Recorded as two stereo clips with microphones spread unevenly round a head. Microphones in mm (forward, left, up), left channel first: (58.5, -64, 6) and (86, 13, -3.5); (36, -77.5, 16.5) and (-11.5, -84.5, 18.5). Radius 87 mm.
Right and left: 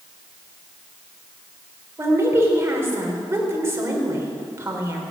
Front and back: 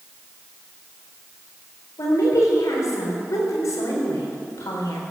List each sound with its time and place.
2.0 s a woman speaking: 10° left, 4 m